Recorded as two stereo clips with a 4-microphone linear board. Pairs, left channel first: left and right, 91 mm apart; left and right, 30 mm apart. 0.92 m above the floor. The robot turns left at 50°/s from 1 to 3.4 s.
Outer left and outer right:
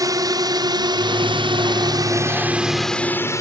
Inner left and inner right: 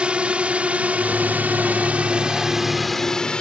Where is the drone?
40° right (ahead or behind); by 3.4 s 35° left (ahead or behind).